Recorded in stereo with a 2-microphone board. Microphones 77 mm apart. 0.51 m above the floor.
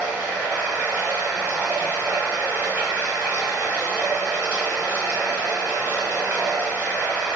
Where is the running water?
25° right (ahead or behind), 1.0 m.